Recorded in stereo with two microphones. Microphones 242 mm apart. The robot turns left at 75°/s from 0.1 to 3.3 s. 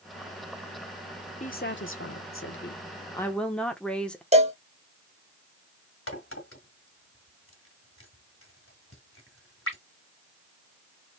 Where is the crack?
60° left (ahead or behind), 2.0 m.